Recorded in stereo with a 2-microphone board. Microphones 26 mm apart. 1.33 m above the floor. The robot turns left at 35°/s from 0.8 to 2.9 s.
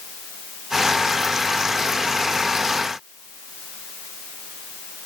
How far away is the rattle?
No rattle in this recording.